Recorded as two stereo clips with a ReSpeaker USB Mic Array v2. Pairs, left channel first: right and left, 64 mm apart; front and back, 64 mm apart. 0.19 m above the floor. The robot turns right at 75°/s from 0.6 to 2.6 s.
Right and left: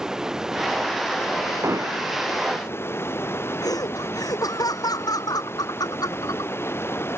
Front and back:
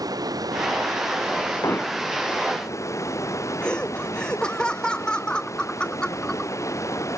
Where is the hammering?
40° left; by 2.0 s 70° left.